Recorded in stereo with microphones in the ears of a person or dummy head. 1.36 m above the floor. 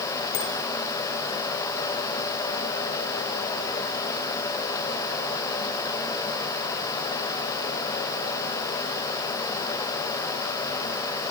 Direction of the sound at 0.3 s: 55° left (ahead or behind).